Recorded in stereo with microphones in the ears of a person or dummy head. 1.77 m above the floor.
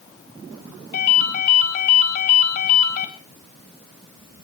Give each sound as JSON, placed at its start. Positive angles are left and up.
{"t": 0.9, "sound": "a ringtone", "side_deg": 55, "distance_m": 4.0}